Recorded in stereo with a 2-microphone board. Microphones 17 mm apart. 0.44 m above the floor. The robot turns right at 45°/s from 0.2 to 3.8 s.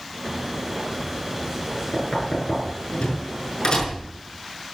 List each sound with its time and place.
1.9 s knocking: 45° left (ahead or behind), 6 m